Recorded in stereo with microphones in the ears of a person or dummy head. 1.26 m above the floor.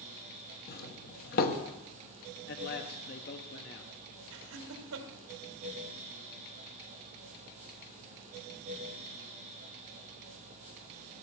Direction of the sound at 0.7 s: 40° left (ahead or behind).